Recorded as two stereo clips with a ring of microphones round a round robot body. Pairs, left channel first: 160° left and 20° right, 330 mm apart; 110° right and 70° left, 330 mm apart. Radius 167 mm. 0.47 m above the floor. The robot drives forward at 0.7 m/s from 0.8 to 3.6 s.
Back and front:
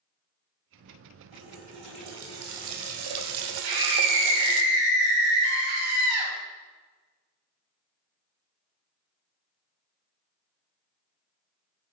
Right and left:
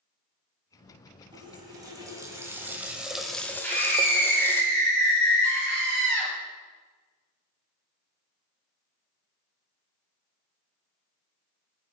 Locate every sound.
1.3 s a running tap: 10° right, 2.5 m; by 4.6 s 30° right, 1.0 m
3.6 s a scream: 30° right, 2.5 m